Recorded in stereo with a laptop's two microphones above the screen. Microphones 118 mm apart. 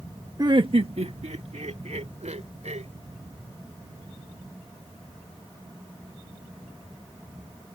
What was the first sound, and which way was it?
Laughter, 30° right (ahead or behind).